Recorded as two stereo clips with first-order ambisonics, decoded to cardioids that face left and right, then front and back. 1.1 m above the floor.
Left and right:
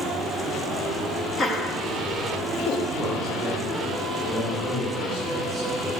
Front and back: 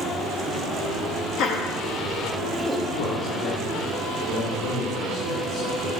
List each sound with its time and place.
1.4 s laughter: 25° left, 0.8 m; by 2.8 s 85° left, 1.0 m
2.9 s a man speaking: straight ahead, 1.9 m